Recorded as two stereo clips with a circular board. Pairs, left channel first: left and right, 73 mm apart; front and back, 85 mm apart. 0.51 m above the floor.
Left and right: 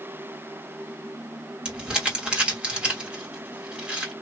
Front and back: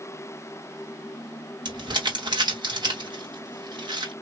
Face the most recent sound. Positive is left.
turn(degrees=-165)